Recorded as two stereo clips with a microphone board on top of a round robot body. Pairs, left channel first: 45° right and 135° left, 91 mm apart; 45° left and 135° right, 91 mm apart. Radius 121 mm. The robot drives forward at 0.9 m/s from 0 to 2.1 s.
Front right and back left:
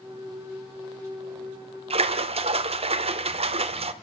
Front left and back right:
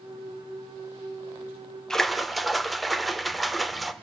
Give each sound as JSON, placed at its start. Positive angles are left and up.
{"t": 1.9, "sound": "a splash", "azimuth_deg": 130, "distance_m": 1.2}